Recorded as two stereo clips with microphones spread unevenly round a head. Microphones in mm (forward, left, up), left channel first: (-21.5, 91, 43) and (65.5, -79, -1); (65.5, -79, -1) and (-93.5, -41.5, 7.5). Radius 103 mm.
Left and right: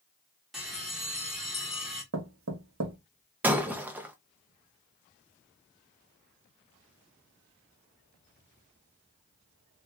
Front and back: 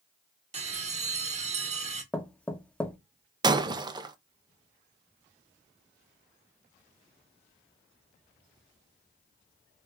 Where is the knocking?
95° right, 0.9 m.